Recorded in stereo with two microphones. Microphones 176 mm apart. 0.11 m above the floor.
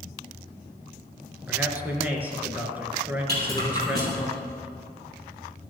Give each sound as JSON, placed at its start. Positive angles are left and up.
{"t": 1.5, "sound": "a man speaking", "side_deg": -10, "distance_m": 1.3}
{"t": 3.3, "sound": "a rattle", "side_deg": -65, "distance_m": 3.5}